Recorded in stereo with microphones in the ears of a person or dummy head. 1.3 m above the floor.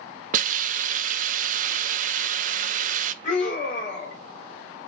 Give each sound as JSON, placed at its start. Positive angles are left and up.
{"t": 0.3, "sound": "a hiss", "side_deg": -45, "distance_m": 0.5}
{"t": 3.2, "sound": "a scream", "side_deg": 45, "distance_m": 4.0}